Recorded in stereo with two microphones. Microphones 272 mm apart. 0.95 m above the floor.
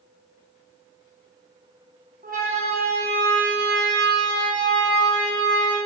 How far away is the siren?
About 8 m.